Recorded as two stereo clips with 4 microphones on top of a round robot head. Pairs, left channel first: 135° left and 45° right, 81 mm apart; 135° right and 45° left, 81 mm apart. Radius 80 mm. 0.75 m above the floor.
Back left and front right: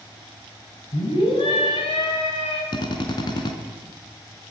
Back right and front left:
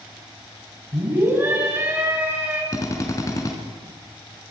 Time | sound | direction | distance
0.9 | a scream | 110° left | 6 m
2.7 | a drill | 170° left | 3.5 m